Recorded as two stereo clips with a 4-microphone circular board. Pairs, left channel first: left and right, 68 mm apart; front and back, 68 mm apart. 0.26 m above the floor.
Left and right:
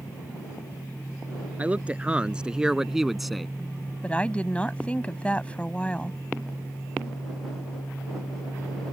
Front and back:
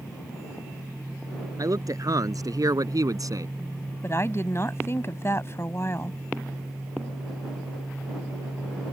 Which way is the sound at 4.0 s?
25° left.